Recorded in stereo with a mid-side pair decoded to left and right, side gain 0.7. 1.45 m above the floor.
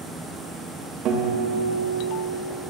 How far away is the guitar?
About 1.9 m.